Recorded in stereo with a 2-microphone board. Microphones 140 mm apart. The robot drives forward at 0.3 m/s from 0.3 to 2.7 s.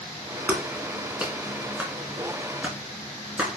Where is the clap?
10° right (ahead or behind), 2.5 m; by 3.6 s 5° right (ahead or behind), 3 m.